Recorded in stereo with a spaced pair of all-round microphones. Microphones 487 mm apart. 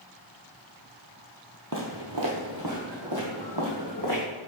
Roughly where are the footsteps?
Right.